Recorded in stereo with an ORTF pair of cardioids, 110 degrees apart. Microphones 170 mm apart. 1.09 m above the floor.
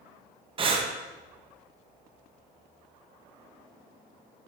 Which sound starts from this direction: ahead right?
Breathing, at 0.6 s.